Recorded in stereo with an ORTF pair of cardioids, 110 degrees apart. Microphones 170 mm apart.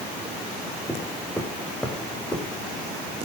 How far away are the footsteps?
About 5.5 m.